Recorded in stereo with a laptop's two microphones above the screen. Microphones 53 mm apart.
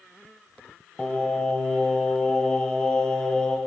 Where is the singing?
15° left (ahead or behind), 1.1 m.